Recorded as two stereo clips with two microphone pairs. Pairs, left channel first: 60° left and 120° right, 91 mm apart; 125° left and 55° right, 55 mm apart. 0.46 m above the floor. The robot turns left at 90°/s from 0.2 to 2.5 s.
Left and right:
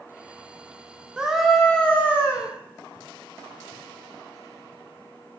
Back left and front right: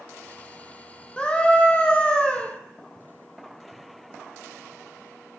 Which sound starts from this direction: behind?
A scream, at 1.2 s.